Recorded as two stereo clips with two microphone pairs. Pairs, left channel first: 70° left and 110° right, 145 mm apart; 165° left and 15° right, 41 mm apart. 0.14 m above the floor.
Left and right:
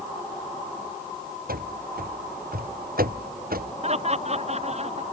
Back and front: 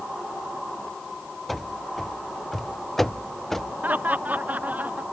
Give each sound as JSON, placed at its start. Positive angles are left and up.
{"t": 1.5, "sound": "running footsteps", "azimuth_deg": -110}
{"t": 3.8, "sound": "laughter", "azimuth_deg": -65}